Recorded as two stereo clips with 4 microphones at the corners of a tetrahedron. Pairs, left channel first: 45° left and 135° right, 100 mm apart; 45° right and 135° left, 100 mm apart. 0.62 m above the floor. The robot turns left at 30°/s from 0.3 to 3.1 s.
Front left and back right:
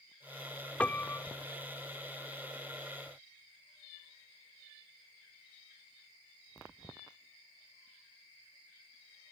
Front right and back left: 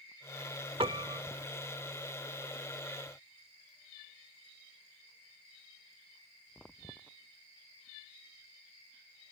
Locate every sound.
0.8 s a piano: 120° left; by 1.2 s 105° left